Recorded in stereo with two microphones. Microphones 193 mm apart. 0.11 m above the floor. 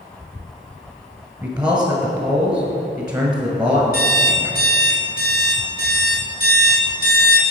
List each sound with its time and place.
1.4 s a man speaking: 20° right (ahead or behind), 1.4 m
3.9 s an alarm clock: 50° left (ahead or behind), 1.9 m